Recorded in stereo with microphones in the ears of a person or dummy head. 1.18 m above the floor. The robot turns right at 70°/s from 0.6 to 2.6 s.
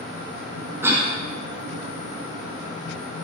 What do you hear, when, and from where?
0.8 s a cough: 10° right (ahead or behind), 0.7 m; by 1.1 s 5° right (ahead or behind), 0.7 m